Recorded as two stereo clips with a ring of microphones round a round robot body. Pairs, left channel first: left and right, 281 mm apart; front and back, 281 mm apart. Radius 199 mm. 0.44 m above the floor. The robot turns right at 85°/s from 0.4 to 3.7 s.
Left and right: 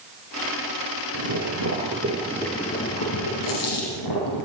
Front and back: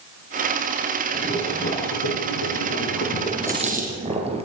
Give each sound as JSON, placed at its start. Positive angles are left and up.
{"t": 1.1, "sound": "boiling", "azimuth_deg": -105, "distance_m": 6.0}
{"t": 3.4, "sound": "a dropped coin", "azimuth_deg": 95, "distance_m": 6.0}